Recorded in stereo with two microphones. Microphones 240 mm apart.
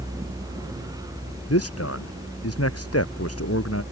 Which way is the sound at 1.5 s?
80° left.